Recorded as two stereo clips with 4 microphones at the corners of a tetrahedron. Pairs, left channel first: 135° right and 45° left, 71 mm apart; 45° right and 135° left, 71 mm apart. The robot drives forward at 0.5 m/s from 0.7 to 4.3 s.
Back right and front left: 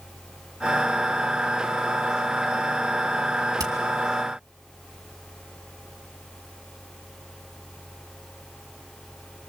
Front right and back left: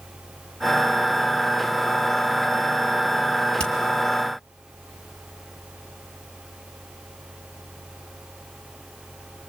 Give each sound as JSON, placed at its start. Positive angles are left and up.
{"t": 3.6, "sound": "hammering", "azimuth_deg": 30, "distance_m": 2.5}